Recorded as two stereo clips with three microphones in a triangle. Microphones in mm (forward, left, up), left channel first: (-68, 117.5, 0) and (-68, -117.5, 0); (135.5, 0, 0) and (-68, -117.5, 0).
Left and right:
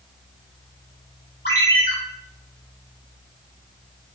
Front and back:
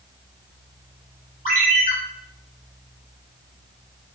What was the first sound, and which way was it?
A ringtone, 70° left.